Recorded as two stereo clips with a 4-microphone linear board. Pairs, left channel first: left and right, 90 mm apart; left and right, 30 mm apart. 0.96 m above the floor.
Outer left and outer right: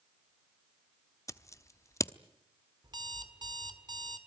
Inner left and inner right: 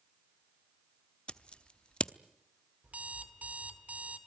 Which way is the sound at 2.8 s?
50° right (ahead or behind).